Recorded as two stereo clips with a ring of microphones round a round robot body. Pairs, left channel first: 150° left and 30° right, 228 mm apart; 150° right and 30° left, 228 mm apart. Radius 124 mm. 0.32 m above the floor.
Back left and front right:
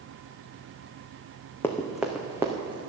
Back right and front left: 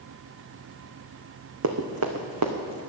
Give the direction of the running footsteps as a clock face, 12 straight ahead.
10 o'clock.